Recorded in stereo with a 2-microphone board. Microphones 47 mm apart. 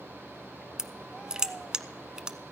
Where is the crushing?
15° right (ahead or behind), 0.7 m.